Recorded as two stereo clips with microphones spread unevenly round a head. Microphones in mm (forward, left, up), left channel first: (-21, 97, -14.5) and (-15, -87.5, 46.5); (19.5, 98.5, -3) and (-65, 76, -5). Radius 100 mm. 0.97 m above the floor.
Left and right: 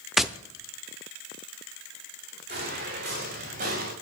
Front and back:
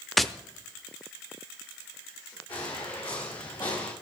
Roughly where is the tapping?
Ahead right.